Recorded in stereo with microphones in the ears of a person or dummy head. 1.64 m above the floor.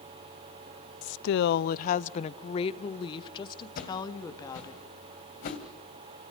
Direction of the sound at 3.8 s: 40° left (ahead or behind).